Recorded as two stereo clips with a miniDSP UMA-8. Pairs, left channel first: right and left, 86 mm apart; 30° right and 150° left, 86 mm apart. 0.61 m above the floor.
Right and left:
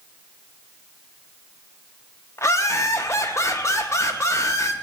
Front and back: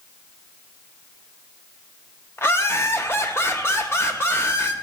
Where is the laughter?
70° right, 0.8 m.